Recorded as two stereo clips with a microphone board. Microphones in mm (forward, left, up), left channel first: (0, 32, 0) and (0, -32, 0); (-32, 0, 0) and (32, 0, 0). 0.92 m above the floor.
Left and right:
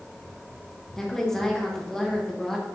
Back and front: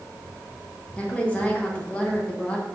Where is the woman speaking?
165° left, 0.8 m.